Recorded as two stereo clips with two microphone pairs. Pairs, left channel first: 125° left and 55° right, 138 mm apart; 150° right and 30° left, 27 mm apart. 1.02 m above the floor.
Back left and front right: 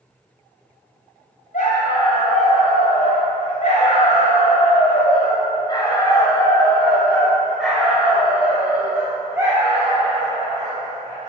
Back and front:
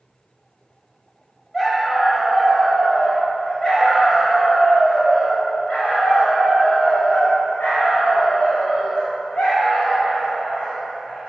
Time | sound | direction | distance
1.5 | a dog barking | 135° left | 3 m